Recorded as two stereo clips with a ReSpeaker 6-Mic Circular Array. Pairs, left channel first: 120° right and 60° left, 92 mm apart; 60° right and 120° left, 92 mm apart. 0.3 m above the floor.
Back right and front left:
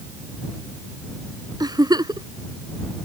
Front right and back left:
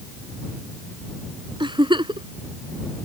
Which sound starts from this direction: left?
A giggle, at 1.6 s.